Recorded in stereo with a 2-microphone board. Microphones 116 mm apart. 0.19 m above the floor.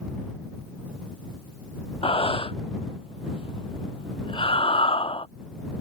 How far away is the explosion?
No explosion in this recording.